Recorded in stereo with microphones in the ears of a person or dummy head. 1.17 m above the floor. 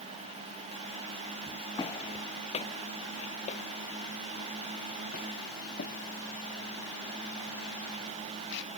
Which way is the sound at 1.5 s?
20° left (ahead or behind).